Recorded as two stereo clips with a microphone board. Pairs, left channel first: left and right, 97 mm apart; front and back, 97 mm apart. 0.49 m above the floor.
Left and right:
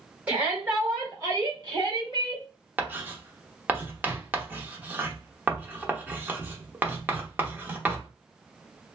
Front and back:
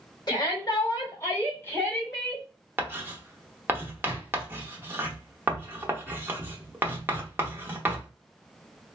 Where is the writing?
140° right, 0.7 m.